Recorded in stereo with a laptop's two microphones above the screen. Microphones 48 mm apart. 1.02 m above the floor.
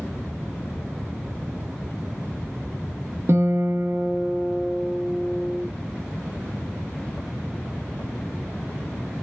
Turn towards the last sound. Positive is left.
turn(degrees=-55)  # may be behind; listen again after turning